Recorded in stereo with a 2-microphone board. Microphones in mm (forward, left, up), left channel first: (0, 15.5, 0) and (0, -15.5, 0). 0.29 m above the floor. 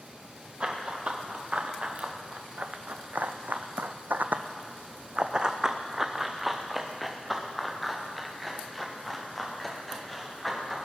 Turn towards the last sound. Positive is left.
turn(degrees=10)  # may be behind; listen again after turning